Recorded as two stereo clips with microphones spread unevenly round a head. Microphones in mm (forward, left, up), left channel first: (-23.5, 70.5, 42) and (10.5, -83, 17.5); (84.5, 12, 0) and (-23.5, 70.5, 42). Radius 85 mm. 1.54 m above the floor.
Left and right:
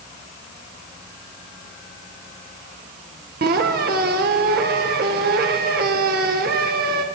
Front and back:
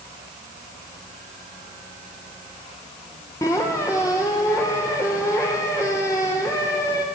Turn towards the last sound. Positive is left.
turn(degrees=-110)